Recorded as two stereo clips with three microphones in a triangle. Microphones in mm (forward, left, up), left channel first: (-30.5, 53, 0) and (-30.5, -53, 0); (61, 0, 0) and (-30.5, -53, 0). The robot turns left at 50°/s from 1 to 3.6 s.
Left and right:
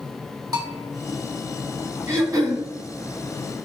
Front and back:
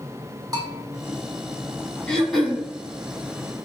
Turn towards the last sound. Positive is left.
turn(degrees=-120)